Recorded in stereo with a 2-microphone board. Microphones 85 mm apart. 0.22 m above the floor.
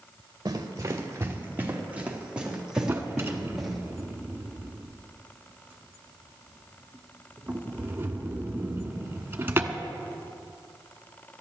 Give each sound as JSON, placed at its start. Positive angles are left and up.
{"t": 0.5, "sound": "running footsteps", "side_deg": -45, "distance_m": 2.5}
{"t": 2.9, "sound": "a drawer", "side_deg": -25, "distance_m": 1.1}